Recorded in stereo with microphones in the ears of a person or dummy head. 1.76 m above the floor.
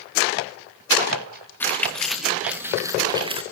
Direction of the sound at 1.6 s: 10° left (ahead or behind).